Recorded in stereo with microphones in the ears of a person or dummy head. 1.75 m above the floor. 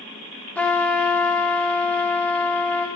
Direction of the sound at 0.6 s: 10° left (ahead or behind).